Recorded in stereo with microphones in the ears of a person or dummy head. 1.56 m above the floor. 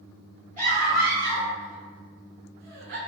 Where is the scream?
45° right (ahead or behind), 2.0 m; by 3.0 s 60° right (ahead or behind), 1.1 m.